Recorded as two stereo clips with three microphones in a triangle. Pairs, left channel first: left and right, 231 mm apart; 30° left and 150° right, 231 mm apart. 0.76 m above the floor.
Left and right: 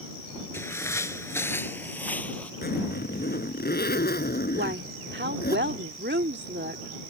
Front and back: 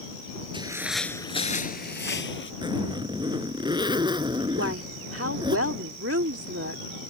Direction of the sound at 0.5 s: 160° left.